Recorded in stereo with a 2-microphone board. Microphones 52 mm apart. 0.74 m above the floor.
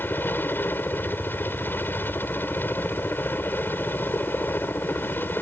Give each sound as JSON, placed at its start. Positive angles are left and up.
{"t": 0.0, "sound": "a helicopter", "side_deg": 40}